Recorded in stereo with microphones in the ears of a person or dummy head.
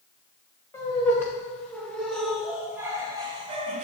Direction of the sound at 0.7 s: 15° left (ahead or behind).